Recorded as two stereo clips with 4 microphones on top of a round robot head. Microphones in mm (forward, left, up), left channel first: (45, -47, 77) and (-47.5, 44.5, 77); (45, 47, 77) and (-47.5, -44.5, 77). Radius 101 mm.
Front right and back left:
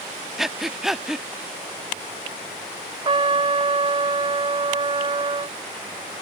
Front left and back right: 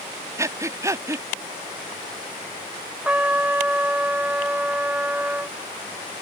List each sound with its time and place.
0.4 s breathing: 140° right
3.0 s a trumpet: 150° left